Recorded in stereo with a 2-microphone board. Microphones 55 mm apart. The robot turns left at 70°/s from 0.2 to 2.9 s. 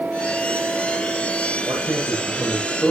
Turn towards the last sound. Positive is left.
turn(degrees=170)